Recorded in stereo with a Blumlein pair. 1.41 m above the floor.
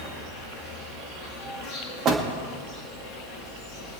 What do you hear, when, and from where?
0.0 s an insect: 40° left, 3.5 m
2.0 s a door slam: 30° right, 1.8 m